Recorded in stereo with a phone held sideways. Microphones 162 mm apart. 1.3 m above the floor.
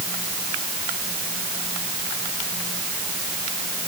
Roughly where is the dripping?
No dripping in this recording.